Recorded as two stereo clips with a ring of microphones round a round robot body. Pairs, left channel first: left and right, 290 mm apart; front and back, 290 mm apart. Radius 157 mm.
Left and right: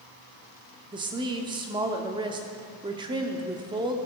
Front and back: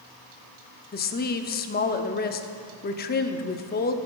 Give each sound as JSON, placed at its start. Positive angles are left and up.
{"t": 0.9, "sound": "a woman speaking", "azimuth_deg": -25, "distance_m": 0.7}